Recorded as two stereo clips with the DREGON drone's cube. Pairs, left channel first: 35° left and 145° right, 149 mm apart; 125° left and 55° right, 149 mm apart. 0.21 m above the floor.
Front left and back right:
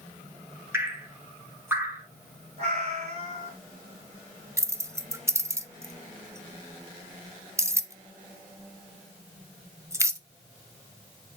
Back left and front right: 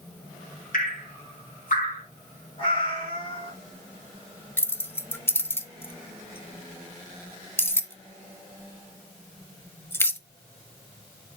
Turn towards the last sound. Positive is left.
turn(degrees=175)